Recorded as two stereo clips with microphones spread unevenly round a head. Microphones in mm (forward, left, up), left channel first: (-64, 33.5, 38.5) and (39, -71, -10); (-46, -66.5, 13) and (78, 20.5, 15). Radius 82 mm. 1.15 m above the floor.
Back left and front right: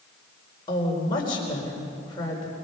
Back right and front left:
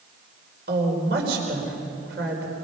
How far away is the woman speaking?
About 4.5 m.